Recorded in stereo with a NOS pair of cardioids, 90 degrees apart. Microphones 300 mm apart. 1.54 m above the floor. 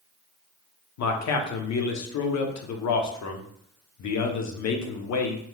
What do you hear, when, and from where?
1.0 s a man speaking: 65° left, 0.9 m